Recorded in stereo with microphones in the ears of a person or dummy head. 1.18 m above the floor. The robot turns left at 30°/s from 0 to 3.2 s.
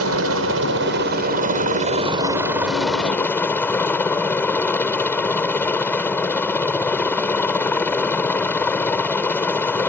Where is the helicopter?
90° right; by 9.9 s 175° left.